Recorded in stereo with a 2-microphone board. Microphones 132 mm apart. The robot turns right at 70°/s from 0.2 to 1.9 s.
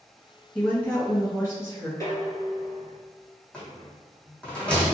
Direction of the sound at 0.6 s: 10° left (ahead or behind).